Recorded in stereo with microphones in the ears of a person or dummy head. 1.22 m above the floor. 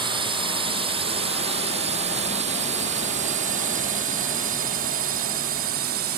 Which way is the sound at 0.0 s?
25° right (ahead or behind).